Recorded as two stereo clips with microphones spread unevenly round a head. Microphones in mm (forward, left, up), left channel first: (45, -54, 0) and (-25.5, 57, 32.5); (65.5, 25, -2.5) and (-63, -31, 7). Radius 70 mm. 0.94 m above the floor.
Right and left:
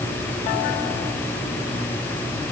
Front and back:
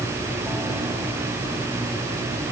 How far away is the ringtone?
I don't hear a ringtone.